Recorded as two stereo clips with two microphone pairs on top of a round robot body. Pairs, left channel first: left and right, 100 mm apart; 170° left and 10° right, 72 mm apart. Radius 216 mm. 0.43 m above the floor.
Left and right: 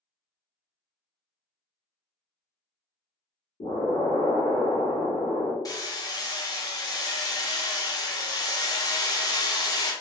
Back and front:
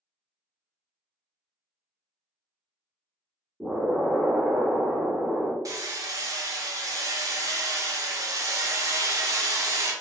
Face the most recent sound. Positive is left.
turn(degrees=35)